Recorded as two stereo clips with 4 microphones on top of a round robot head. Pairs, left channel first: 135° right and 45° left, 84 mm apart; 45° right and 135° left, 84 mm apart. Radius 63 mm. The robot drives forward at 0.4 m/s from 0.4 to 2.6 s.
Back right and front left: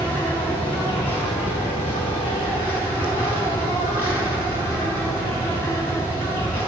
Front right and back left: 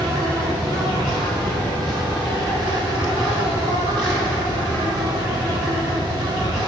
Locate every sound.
0.0 s an insect: 160° left, 3.5 m; by 6.7 s 165° left, 4.5 m